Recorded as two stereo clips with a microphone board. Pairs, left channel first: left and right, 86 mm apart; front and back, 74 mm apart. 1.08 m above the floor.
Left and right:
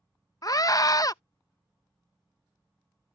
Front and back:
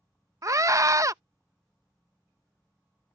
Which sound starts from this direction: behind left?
A scream, at 0.4 s.